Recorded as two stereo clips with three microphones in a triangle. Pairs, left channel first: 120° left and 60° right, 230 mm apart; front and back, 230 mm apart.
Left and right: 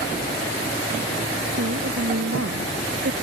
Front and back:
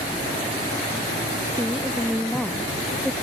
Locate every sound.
1.6 s a woman speaking: 85° right; by 3.1 s 90° right